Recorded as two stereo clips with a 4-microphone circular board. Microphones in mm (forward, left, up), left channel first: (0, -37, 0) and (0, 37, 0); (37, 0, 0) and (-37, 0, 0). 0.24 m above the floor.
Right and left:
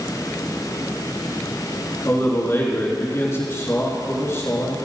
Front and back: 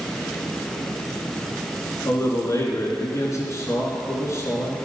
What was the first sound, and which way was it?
A man speaking, 40° right.